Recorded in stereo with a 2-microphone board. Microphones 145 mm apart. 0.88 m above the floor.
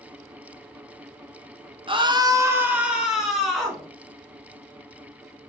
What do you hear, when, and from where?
1.9 s a scream: 35° right (ahead or behind), 0.8 m; by 3.9 s centre (ahead or behind), 2 m